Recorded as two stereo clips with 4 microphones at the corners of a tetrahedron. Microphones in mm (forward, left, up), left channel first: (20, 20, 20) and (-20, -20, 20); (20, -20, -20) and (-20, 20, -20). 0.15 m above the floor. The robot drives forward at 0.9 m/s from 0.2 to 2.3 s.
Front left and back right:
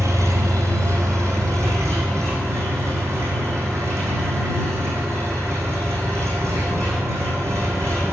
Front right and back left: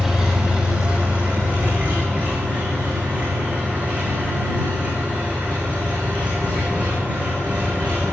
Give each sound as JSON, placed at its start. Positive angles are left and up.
{"t": 0.0, "sound": "an engine running", "azimuth_deg": -145, "distance_m": 1.8}